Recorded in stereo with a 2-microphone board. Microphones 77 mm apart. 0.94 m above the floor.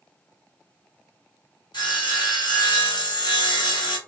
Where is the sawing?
70° left (ahead or behind), 1.9 m.